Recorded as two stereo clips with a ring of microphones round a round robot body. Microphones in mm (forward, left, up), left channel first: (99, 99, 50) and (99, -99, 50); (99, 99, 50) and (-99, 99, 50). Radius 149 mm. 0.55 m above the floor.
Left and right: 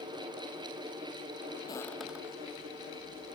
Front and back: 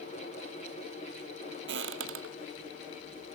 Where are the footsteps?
165° left; by 3.4 s 155° right.